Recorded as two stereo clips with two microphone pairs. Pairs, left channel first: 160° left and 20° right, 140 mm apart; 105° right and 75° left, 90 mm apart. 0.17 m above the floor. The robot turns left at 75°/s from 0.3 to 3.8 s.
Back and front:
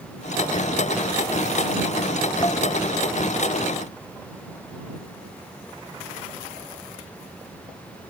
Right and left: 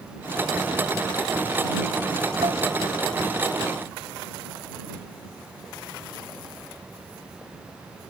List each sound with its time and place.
2.4 s dishes clattering: 100° left; by 2.6 s 85° left